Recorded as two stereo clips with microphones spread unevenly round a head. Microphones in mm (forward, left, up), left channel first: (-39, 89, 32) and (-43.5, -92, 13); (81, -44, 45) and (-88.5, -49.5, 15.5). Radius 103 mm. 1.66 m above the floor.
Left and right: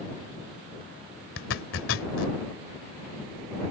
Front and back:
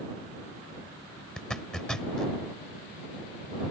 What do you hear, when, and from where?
1.4 s a zipper: 85° left